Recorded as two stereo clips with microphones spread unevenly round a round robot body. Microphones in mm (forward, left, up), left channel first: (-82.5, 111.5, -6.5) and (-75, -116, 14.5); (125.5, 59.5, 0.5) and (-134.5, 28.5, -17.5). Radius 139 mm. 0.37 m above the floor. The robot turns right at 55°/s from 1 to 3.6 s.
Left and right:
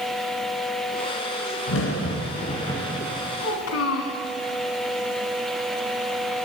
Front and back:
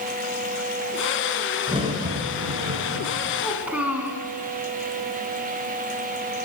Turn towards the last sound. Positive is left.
turn(degrees=100)